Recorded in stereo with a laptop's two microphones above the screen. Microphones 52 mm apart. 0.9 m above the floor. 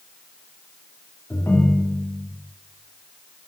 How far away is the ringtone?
About 1.5 m.